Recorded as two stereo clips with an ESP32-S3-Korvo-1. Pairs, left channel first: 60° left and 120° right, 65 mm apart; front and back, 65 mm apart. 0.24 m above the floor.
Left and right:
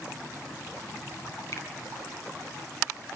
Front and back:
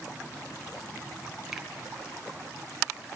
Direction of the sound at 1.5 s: 95° left.